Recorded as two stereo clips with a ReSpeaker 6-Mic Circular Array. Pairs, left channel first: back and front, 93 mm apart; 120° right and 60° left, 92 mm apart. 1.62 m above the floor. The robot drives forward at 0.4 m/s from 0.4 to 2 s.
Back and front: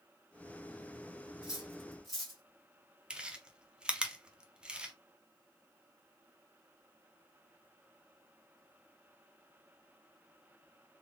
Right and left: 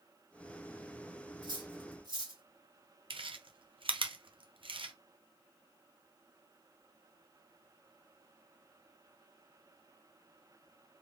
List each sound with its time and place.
1.4 s cutlery clinking: 80° left, 1.4 m; by 2.4 s 95° left, 1.4 m
3.1 s chewing: 80° left, 0.6 m